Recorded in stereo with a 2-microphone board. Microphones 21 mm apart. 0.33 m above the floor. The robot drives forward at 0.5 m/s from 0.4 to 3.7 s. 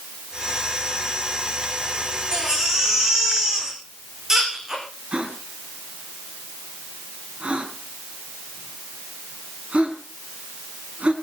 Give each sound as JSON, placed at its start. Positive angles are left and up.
{"t": 2.3, "sound": "a baby crying", "side_deg": -25, "distance_m": 8.5}
{"t": 5.1, "sound": "a gasp", "side_deg": -65, "distance_m": 3.5}